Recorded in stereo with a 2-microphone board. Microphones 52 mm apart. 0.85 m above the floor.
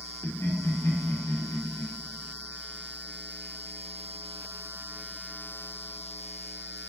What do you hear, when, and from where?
0.2 s laughter: 75° left (ahead or behind), 1.7 m